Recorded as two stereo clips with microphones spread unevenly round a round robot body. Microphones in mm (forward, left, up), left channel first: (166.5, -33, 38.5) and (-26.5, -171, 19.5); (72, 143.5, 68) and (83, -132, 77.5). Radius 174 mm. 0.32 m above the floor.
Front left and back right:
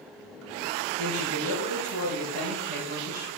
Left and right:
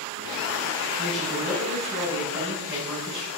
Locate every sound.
1.0 s a woman speaking: 175° right, 5 m